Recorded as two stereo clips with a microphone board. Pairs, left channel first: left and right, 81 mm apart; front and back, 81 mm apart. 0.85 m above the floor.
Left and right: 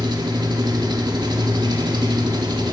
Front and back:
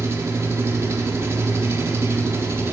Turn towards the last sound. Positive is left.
turn(degrees=-120)